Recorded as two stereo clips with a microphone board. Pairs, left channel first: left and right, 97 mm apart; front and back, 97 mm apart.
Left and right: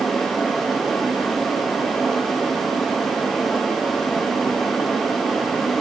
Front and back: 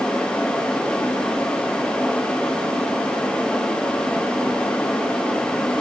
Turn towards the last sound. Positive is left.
No sound to turn to.